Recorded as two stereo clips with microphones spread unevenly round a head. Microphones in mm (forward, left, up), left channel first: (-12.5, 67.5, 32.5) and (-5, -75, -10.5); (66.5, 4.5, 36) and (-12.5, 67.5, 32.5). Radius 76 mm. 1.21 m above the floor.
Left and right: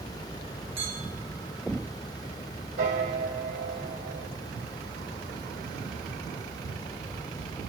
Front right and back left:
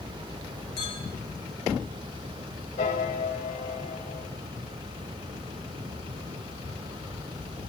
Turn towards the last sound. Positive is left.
turn(degrees=-60)